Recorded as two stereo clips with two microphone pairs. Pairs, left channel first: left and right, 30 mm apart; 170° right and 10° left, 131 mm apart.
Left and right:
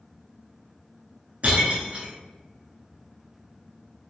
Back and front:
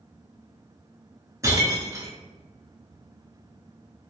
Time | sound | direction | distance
1.4 | breaking glass | 50° right | 0.8 m